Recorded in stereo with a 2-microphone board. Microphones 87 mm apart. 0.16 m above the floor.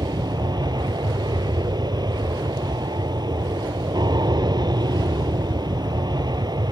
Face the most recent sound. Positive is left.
turn(degrees=-50)  # may be behind; listen again after turning